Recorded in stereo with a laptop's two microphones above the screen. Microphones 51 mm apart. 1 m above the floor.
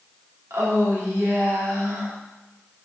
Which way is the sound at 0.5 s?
75° right (ahead or behind).